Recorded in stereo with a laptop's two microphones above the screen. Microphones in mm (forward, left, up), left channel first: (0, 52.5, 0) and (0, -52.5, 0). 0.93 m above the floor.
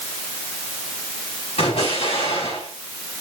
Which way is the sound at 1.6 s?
80° left.